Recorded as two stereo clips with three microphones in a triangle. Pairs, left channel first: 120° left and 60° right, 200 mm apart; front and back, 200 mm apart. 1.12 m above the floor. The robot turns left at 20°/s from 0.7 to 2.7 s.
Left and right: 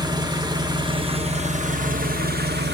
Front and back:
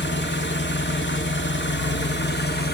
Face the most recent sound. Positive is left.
turn(degrees=-30)